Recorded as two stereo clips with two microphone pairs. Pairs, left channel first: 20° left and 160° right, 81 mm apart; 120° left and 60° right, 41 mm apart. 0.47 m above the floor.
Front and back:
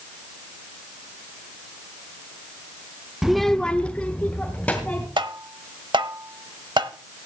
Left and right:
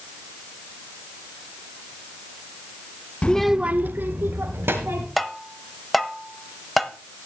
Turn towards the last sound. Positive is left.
turn(degrees=-150)